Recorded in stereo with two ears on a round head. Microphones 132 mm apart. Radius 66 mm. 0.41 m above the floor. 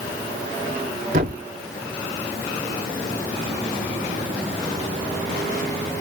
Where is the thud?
60° right (ahead or behind), 2.5 m.